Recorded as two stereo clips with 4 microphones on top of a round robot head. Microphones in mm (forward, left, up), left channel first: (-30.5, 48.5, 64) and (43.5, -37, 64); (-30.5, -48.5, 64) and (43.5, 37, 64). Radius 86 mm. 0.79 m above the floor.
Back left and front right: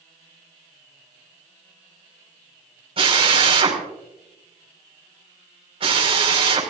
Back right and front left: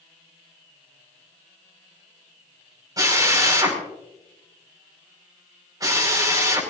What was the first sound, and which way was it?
A drill, 10° right.